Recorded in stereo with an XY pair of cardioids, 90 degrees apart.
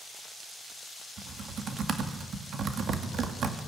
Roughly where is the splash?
No splash in this recording.